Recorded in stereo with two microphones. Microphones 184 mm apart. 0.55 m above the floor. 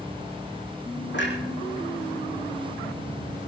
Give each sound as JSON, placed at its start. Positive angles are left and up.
{"t": 1.1, "sound": "a clunk", "side_deg": 75, "distance_m": 4.5}